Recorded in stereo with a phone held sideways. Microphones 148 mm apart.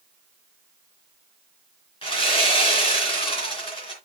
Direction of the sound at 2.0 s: 35° left (ahead or behind).